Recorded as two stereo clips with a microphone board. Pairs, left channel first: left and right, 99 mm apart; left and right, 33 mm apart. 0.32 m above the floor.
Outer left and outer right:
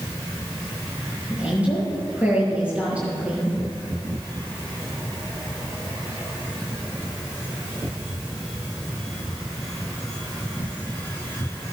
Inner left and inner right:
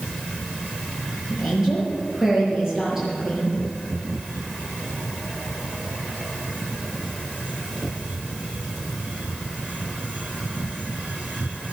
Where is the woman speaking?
15° right (ahead or behind), 7 m.